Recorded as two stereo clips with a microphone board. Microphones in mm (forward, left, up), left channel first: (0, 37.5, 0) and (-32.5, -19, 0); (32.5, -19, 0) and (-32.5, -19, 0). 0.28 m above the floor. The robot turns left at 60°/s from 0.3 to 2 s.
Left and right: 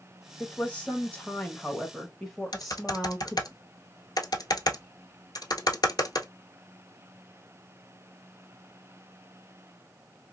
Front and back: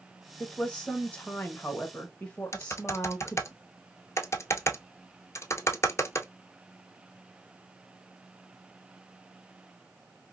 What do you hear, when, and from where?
0.4 s a woman speaking: 65° left, 1.0 m; by 3.5 s 30° right, 1.0 m
2.5 s typing on a keyboard: 45° left, 0.8 m